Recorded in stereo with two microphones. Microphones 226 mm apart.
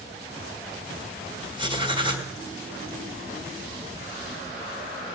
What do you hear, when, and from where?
1.6 s writing: 20° right (ahead or behind), 2 m